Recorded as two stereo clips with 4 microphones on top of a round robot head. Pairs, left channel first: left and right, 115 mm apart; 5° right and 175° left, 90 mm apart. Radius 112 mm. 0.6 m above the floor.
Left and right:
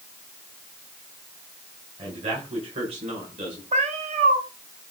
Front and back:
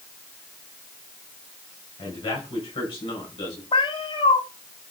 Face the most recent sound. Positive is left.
turn(degrees=-55)